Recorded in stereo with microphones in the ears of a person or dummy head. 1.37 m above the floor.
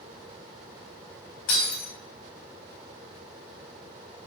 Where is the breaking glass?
75° left (ahead or behind), 4.5 m.